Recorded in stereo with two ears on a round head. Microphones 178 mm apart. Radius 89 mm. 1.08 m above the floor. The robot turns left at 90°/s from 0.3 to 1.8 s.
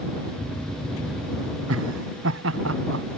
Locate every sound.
1.7 s laughter: 85° right; by 3.0 s 75° right (ahead or behind)